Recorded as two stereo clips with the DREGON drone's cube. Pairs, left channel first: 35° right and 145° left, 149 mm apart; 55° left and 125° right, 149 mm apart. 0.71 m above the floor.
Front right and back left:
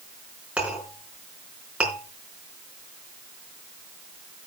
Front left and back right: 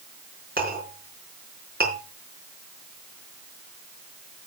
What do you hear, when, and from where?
0.6 s a clink: 130° right, 4.5 m